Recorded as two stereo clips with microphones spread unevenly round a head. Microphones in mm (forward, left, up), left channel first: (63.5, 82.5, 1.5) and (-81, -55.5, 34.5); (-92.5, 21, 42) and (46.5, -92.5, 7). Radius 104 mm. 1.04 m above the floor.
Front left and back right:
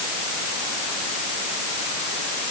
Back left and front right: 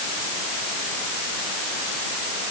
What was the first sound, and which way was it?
Only background noise.